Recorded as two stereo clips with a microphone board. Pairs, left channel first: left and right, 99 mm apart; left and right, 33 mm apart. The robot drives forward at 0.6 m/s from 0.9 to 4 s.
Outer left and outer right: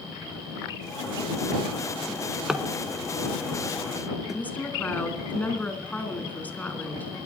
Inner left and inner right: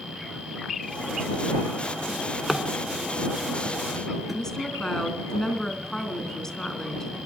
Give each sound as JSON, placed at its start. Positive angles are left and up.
{"t": 2.1, "sound": "a drawer", "side_deg": -5, "distance_m": 1.0}
{"t": 4.3, "sound": "a woman speaking", "side_deg": 15, "distance_m": 2.0}